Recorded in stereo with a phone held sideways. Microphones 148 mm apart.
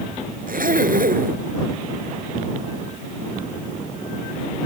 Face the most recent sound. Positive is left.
turn(degrees=-75)  # may be behind; listen again after turning